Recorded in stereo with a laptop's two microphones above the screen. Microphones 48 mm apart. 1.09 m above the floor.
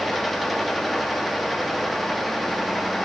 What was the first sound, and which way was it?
A fan, centre (ahead or behind).